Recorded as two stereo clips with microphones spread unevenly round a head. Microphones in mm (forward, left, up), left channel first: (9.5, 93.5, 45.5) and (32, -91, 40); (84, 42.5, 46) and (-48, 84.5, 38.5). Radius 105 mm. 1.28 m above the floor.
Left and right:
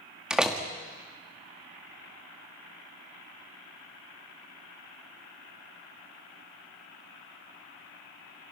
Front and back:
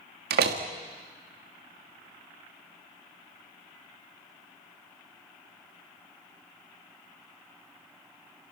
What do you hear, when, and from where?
0.3 s a door slam: 170° right, 1.7 m